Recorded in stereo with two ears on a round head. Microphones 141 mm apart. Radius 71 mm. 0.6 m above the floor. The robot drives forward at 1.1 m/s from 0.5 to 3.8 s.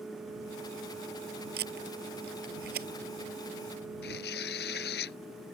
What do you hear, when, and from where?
1.6 s tape being pulled: 70° right (ahead or behind); by 2.9 s 65° right (ahead or behind)
4.0 s tearing paper: 70° left (ahead or behind)